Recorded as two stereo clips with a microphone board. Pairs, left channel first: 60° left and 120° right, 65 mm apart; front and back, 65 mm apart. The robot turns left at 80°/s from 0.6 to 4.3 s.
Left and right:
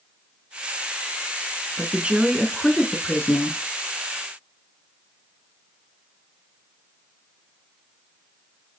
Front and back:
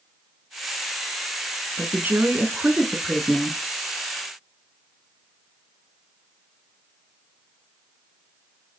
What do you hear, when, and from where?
1.8 s a woman speaking: 150° right, 1.2 m; by 3.6 s 65° left, 1.2 m